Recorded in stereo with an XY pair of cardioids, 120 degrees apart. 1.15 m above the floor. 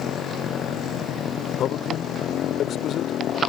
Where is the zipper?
No zipper in this recording.